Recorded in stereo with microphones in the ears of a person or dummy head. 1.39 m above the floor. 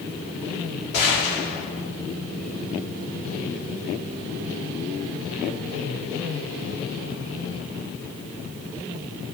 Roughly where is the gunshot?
Left.